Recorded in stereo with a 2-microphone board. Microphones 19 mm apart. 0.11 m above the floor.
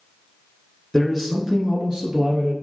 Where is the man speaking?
Centre (ahead or behind), 1.2 m; by 2.5 s 55° right (ahead or behind), 2 m.